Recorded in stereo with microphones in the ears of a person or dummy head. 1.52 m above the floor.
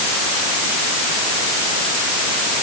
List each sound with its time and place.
Only background noise.